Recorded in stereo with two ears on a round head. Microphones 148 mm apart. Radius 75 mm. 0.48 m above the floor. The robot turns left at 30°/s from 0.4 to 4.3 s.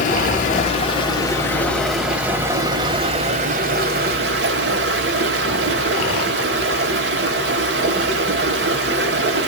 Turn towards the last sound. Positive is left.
turn(degrees=-70)